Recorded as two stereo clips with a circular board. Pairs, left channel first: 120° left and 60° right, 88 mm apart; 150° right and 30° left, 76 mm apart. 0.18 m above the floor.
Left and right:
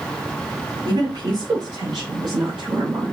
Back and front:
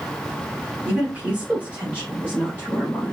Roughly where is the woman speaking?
Ahead right.